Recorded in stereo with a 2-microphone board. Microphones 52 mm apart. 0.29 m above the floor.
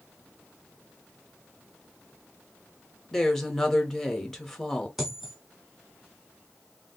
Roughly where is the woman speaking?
Centre.